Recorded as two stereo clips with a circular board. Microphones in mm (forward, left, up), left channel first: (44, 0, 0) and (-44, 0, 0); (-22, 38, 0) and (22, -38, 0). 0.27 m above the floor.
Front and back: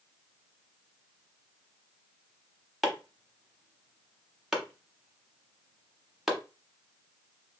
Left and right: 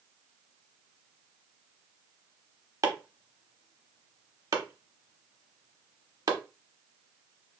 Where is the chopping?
95° right, 0.8 m.